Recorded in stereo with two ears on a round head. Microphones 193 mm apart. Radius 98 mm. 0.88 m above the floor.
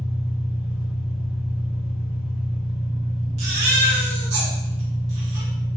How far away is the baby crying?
About 1.3 m.